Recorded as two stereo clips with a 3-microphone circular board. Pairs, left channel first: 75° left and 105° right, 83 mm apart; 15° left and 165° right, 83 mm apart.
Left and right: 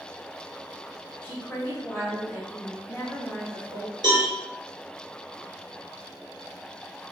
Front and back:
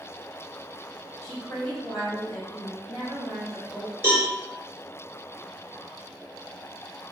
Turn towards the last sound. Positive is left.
turn(degrees=-110)